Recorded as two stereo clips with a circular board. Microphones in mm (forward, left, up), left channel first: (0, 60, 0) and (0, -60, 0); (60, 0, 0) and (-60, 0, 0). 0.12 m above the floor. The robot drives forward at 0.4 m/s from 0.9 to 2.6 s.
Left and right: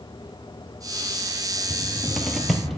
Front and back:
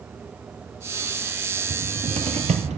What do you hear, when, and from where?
1.7 s a cupboard door: straight behind, 0.5 m